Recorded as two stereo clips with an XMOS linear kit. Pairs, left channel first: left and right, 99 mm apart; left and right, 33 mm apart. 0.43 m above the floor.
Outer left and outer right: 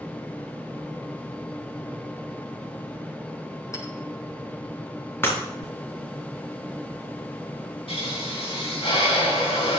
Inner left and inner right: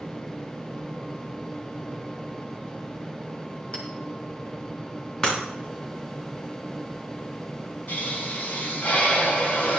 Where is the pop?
75° left (ahead or behind), 3.5 m.